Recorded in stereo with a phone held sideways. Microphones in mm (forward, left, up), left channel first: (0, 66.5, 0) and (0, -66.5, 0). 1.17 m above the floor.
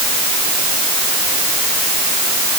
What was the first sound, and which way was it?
Only background noise.